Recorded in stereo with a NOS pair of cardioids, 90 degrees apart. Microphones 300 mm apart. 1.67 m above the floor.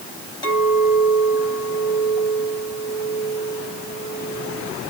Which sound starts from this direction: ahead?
A clink, at 0.4 s.